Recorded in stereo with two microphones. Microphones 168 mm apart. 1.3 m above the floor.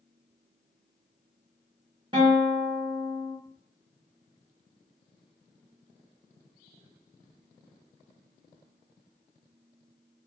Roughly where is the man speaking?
I don't hear a man speaking.